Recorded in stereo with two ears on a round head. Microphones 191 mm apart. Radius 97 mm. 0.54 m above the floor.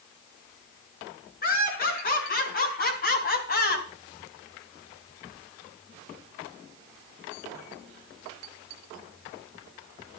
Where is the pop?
I don't hear a pop.